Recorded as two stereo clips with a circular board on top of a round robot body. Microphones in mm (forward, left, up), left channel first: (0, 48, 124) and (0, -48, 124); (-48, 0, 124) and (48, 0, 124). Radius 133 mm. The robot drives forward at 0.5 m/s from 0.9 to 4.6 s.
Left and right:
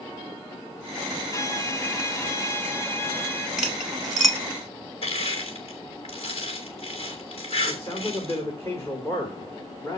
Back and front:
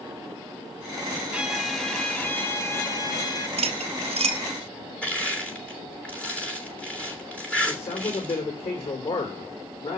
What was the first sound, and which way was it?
A violin, 70° left.